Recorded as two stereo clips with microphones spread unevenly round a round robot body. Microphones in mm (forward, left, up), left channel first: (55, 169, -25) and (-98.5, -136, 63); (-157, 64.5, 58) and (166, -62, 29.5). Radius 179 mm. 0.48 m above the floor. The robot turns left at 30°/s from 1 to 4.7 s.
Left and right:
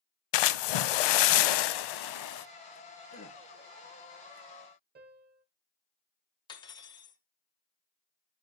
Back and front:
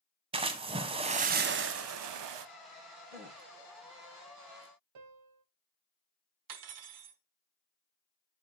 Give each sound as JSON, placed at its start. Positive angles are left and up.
{"t": 0.3, "sound": "a splash", "azimuth_deg": 55, "distance_m": 0.5}
{"t": 3.1, "sound": "a gasp", "azimuth_deg": 20, "distance_m": 3.0}
{"t": 5.0, "sound": "a piano", "azimuth_deg": -50, "distance_m": 0.7}
{"t": 6.5, "sound": "cutlery clinking", "azimuth_deg": -5, "distance_m": 0.9}